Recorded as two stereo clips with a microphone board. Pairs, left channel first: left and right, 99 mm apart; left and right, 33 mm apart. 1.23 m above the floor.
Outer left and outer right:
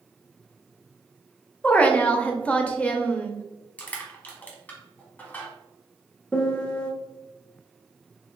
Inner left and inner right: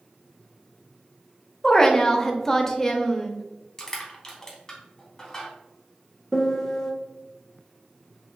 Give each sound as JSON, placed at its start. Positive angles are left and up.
{"t": 1.6, "sound": "a woman speaking", "side_deg": 15, "distance_m": 0.6}
{"t": 3.8, "sound": "crushing", "side_deg": 15, "distance_m": 1.0}
{"t": 6.3, "sound": "a piano", "side_deg": 10, "distance_m": 0.6}